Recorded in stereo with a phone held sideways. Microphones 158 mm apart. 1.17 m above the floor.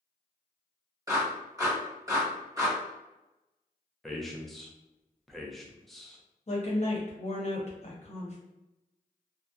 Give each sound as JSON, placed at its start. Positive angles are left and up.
{"t": 1.1, "sound": "a clap", "side_deg": -20, "distance_m": 1.4}
{"t": 4.0, "sound": "a man speaking", "side_deg": 0, "distance_m": 0.5}
{"t": 6.5, "sound": "a woman speaking", "side_deg": 45, "distance_m": 0.8}